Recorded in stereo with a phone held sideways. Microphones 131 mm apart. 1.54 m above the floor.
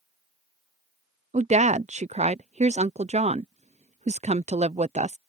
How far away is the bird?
I don't hear a bird.